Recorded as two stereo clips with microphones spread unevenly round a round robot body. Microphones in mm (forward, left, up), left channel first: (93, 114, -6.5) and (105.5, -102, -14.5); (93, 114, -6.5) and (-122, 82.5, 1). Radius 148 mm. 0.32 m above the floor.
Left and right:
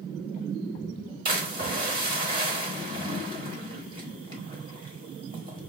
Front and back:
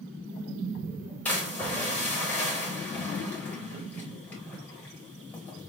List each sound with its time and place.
1.2 s a splash: 65° right, 1.0 m